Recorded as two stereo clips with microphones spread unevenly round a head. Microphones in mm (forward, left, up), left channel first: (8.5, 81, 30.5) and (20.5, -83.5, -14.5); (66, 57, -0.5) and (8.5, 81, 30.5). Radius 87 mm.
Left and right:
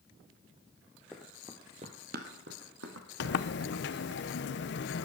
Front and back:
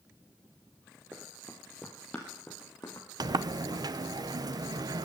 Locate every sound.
1.1 s running footsteps: 165° left, 1.7 m; by 4.1 s 90° right, 4 m
3.2 s a sliding door: 125° left, 0.6 m